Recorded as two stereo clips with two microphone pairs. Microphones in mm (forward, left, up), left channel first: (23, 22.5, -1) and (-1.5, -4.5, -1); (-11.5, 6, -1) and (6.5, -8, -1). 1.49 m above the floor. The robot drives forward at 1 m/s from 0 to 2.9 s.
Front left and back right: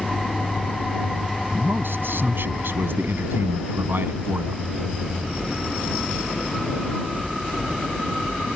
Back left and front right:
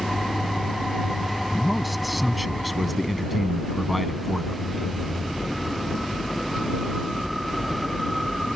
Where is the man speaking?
125° right; by 4.6 s 130° right.